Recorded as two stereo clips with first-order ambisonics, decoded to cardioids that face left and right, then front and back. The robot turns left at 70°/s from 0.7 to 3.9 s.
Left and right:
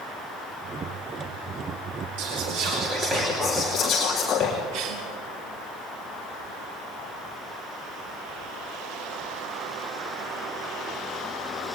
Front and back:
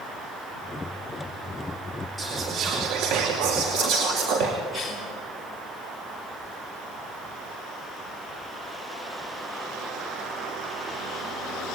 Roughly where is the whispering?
Right.